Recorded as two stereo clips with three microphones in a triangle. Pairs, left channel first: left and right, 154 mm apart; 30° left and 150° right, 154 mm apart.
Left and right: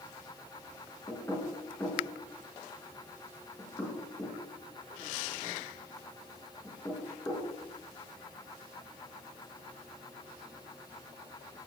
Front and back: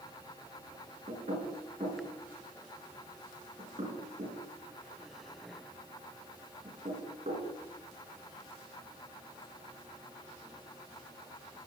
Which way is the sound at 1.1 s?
160° left.